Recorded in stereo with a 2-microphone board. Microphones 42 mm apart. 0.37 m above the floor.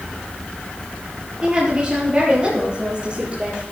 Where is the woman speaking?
20° right (ahead or behind), 8.5 m; by 3.6 s 25° right (ahead or behind), 9.5 m.